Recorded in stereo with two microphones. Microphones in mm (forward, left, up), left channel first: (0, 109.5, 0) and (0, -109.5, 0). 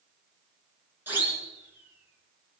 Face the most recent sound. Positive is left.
turn(degrees=-5)  # may be behind; listen again after turning